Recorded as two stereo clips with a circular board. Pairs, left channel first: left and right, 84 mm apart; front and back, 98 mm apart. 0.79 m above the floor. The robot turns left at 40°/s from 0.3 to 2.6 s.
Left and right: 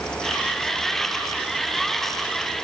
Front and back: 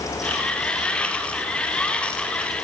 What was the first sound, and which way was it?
Only background noise.